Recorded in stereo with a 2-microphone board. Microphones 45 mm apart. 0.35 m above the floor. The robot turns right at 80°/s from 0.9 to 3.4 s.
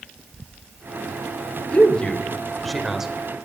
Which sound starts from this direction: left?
A man speaking, at 1.7 s.